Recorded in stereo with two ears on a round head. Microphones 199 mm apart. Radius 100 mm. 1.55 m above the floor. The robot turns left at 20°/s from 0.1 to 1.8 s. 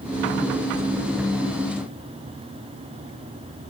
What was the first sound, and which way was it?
Only background noise.